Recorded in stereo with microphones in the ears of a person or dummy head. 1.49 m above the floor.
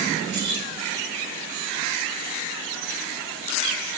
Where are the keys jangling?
70° right (ahead or behind), 4.5 m.